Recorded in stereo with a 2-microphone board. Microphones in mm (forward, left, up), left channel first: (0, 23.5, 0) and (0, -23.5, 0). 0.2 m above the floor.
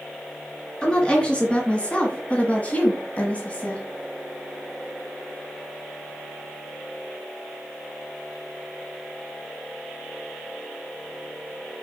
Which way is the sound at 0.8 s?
20° left (ahead or behind).